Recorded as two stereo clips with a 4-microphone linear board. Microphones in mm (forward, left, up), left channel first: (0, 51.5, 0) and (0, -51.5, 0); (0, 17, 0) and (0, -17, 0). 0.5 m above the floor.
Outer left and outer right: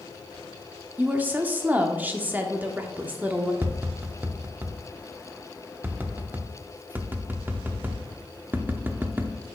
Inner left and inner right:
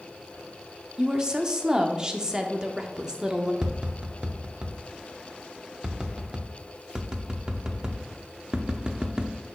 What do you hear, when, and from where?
1.0 s a woman speaking: 15° right (ahead or behind), 0.7 m
3.6 s tapping: 20° right (ahead or behind), 0.6 m